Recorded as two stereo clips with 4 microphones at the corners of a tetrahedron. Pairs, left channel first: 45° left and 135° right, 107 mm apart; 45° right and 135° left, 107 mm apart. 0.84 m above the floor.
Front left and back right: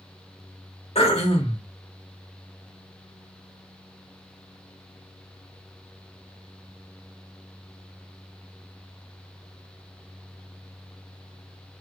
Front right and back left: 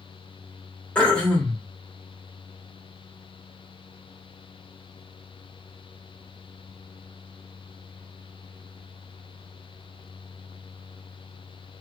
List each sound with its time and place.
0.9 s throat clearing: 35° left, 1.5 m